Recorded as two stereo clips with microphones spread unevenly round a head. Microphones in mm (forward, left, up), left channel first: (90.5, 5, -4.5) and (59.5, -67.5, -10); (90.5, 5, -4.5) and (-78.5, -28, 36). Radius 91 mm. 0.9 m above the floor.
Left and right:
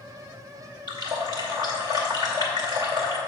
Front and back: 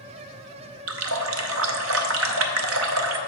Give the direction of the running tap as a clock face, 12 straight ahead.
6 o'clock.